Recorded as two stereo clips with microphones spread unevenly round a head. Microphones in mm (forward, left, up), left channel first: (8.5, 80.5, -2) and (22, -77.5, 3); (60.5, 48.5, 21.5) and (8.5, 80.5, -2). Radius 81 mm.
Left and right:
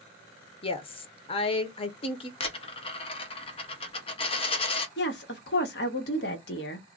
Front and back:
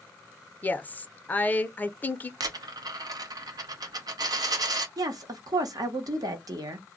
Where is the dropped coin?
135° left, 0.7 m.